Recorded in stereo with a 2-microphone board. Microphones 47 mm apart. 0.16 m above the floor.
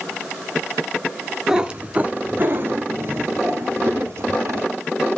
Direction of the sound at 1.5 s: 15° right (ahead or behind).